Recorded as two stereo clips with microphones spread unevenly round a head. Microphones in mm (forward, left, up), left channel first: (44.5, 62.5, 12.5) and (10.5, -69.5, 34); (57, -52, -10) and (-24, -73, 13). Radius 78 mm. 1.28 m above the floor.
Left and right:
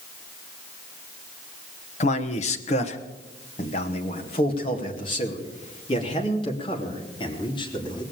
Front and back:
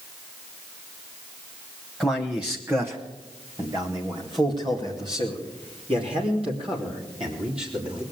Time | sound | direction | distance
2.0 | a man speaking | 100° left | 1.1 m